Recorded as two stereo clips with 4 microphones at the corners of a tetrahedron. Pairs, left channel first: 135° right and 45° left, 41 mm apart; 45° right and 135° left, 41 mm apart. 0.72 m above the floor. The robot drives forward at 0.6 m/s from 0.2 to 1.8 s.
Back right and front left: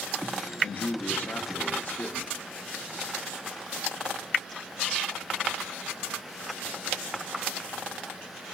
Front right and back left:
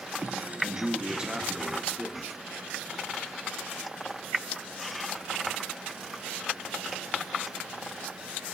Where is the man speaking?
150° right, 1.1 m; by 2.4 s 165° right, 1.7 m.